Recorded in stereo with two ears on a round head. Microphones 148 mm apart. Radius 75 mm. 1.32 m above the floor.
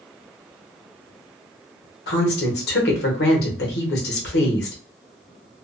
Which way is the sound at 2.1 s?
65° left (ahead or behind).